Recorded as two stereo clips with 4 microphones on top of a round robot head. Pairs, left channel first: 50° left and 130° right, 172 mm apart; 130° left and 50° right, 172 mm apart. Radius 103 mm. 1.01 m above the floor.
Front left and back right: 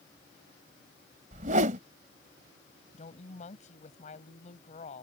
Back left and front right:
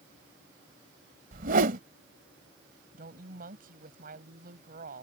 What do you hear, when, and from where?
1.3 s a whoosh: 85° right
2.9 s a woman speaking: 5° right